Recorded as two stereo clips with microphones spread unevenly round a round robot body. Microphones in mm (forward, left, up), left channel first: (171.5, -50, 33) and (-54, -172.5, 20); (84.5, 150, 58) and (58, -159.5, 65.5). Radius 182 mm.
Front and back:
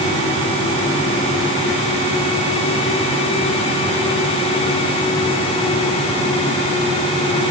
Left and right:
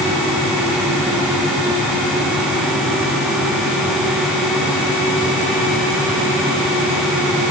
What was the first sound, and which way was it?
Only background noise.